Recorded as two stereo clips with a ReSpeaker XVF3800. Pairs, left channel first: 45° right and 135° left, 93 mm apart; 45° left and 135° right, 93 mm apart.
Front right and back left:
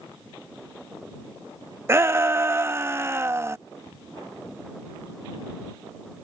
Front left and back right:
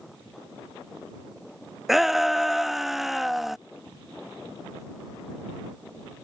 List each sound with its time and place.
1.9 s a shout: 140° left